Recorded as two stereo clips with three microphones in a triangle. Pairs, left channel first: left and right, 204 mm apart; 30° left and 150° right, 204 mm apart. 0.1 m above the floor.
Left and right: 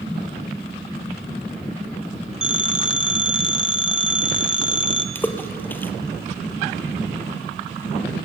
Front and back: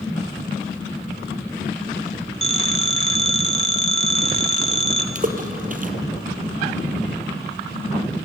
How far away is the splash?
About 1.8 m.